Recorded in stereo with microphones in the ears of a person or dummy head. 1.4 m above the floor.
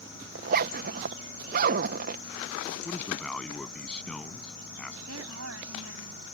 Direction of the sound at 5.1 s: 85° right.